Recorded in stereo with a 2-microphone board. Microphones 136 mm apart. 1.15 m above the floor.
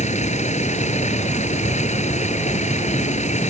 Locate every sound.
0.0 s a vehicle: 55° left (ahead or behind)